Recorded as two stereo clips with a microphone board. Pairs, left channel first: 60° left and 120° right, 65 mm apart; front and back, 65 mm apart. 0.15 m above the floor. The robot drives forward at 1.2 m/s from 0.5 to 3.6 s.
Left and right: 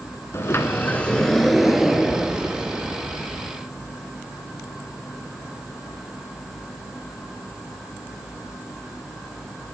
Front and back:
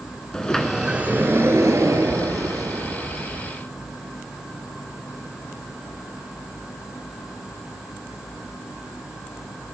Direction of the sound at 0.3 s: 75° left.